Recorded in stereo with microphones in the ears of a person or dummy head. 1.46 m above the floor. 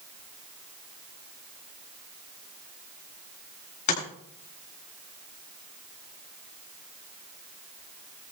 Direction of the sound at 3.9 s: 40° left (ahead or behind).